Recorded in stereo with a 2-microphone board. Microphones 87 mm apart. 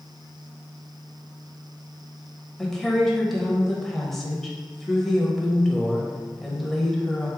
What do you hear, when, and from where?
2.6 s a woman speaking: 5° left (ahead or behind), 0.9 m